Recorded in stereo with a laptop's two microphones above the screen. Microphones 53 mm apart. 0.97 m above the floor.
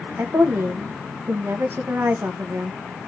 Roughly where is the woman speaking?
Right.